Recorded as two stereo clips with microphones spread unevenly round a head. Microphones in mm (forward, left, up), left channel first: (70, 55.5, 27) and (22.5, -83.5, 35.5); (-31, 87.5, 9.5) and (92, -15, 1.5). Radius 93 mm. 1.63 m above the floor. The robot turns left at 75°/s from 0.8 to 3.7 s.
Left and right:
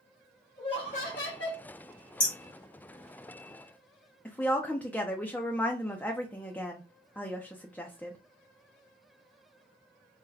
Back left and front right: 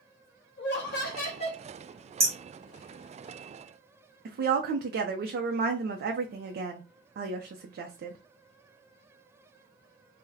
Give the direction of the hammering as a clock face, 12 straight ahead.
11 o'clock.